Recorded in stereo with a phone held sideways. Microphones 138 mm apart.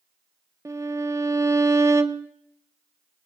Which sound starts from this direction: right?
A violin, at 0.7 s.